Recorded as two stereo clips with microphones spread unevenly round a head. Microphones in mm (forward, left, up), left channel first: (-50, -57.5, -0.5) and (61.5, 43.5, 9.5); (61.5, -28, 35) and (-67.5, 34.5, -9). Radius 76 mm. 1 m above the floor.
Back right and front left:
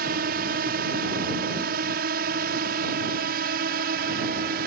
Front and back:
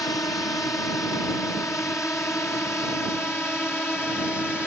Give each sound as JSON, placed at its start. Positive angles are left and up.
{"t": 0.0, "sound": "a drone", "azimuth_deg": 50}